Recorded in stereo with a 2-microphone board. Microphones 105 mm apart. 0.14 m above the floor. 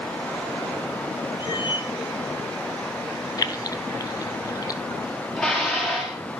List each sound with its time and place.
1.4 s a cat meowing: 50° left (ahead or behind), 1.6 m
3.4 s keys jangling: 35° left (ahead or behind), 1.3 m
5.4 s dishes clattering: 5° left (ahead or behind), 9.5 m